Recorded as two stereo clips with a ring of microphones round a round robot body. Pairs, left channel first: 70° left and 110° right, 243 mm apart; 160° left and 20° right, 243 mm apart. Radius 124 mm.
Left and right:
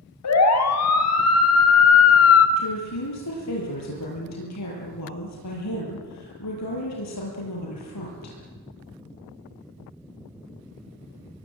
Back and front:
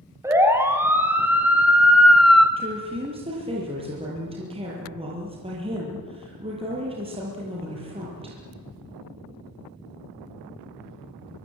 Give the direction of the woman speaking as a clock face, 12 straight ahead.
10 o'clock.